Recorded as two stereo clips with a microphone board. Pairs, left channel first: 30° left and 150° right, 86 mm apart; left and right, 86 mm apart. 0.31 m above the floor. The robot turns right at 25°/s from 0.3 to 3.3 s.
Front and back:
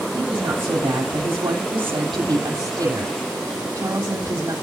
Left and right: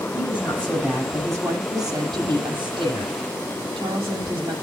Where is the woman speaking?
170° right, 9.5 m; by 4.5 s 95° right, 9.5 m.